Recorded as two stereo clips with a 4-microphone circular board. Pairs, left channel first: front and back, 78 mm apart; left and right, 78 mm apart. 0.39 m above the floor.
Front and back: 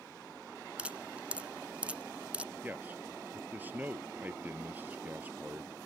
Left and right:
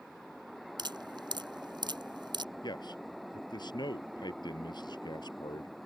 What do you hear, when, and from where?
0.8 s dripping: 105° right
2.6 s a man speaking: 115° left